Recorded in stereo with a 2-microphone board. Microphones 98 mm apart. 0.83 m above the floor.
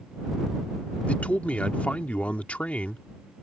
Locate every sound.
1.1 s a man speaking: 15° left (ahead or behind)